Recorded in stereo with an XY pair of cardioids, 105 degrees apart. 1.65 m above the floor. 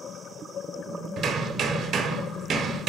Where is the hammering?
70° right, 0.9 m.